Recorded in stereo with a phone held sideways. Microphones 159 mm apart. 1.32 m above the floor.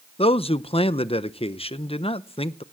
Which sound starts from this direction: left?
A man speaking, at 0.2 s.